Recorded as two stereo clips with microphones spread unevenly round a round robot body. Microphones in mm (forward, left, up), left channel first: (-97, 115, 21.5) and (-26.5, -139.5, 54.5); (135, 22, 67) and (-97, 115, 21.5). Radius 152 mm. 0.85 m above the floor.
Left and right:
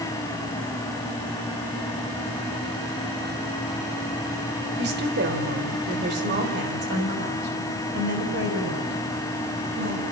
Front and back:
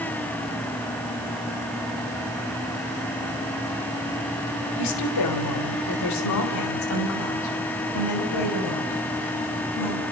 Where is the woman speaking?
15° right, 3.5 m.